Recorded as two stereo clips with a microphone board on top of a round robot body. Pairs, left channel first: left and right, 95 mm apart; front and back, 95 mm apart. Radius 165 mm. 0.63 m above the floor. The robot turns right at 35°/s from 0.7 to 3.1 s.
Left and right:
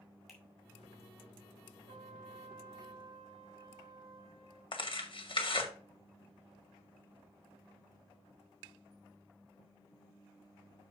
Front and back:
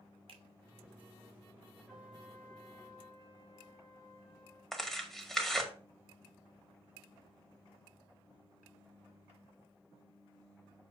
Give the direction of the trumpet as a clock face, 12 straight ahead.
3 o'clock.